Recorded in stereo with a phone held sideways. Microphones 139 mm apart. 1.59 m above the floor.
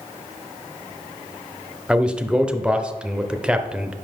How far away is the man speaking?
About 0.6 m.